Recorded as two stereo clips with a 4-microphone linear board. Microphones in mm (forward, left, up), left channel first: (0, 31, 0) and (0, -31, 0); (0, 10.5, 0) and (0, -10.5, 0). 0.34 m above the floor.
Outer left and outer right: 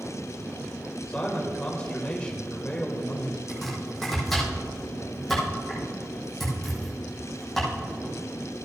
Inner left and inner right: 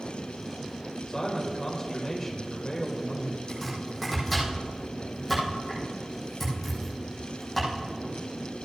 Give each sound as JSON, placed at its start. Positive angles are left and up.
{"t": 1.1, "sound": "a man speaking", "side_deg": 20, "distance_m": 1.4}
{"t": 3.5, "sound": "chopping", "side_deg": 5, "distance_m": 4.5}